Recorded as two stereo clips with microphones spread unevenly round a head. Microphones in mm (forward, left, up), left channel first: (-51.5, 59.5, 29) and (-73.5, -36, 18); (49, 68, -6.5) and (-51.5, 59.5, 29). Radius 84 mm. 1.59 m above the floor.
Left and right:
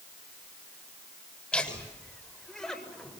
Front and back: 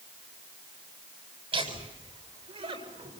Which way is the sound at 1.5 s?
155° left.